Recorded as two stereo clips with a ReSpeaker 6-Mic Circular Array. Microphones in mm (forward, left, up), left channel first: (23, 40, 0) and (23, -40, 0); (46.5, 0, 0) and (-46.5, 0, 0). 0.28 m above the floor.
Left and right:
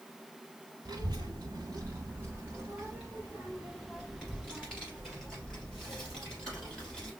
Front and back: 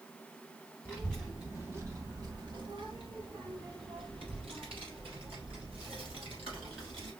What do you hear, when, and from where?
0.8 s a child speaking: 70° right, 1.2 m; by 7.1 s 165° left, 5 m